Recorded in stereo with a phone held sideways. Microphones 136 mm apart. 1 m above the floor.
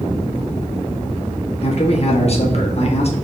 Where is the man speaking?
50° left (ahead or behind), 1.2 m.